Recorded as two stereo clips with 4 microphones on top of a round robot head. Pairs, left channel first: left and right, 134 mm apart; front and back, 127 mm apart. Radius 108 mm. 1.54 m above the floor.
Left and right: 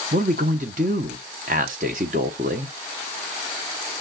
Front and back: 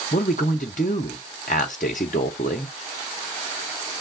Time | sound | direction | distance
0.1 | a man speaking | 45° right | 0.6 m